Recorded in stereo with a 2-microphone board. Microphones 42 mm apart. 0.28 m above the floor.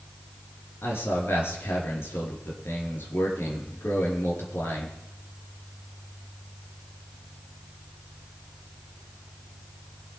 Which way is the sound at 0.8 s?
70° left (ahead or behind).